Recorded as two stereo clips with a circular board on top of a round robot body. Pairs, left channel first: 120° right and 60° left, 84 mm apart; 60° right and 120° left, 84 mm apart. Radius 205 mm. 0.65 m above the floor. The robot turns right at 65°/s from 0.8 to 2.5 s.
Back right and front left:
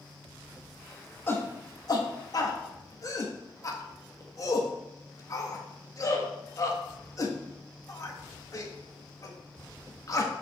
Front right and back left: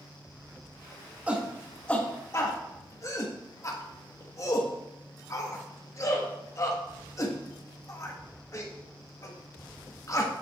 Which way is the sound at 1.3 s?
170° right.